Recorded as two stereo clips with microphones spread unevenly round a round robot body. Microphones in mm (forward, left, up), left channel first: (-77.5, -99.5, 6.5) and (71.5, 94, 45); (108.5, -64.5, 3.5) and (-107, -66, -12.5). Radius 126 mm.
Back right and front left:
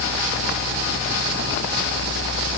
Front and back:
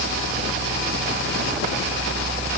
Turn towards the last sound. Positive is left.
No sound to turn to.